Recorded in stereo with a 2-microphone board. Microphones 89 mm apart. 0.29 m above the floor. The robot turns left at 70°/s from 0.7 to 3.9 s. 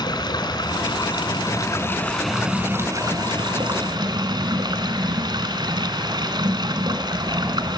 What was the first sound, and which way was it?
Running water, 110° left.